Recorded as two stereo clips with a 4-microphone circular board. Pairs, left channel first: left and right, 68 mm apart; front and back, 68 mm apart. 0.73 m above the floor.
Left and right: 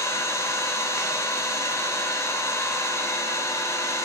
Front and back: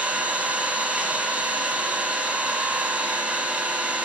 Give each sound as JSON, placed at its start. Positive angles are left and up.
{"t": 0.0, "sound": "an engine running", "azimuth_deg": 115, "distance_m": 0.9}